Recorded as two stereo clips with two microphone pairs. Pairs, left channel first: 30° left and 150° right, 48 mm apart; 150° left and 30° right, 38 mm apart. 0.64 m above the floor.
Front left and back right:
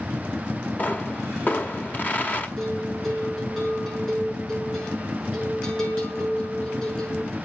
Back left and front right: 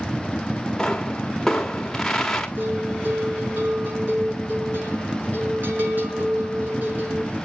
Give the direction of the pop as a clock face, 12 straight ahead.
9 o'clock.